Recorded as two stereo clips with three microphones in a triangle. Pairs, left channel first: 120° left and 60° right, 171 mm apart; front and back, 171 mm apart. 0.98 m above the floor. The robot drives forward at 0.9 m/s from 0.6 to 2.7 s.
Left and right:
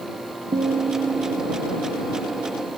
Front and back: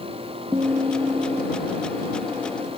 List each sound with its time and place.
0.5 s a guitar: 110° right, 1.0 m; by 2.7 s 160° right, 2.5 m